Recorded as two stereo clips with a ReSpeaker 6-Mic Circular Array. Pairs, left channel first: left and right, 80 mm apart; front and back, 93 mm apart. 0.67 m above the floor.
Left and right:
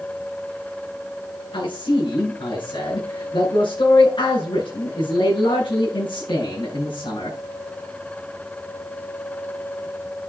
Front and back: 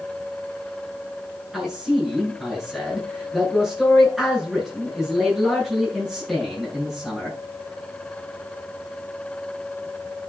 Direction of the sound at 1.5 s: 95° left.